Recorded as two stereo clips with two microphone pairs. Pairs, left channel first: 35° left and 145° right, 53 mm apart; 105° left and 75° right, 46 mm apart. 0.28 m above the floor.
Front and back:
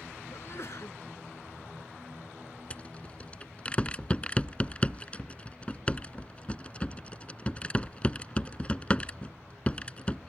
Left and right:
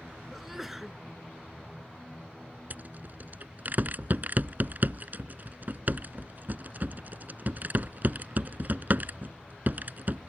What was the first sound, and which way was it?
A sneeze, 10° left.